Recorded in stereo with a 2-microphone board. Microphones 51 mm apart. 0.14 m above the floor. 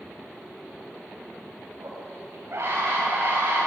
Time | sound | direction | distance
1.8 | a scream | 65° right (ahead or behind) | 10 m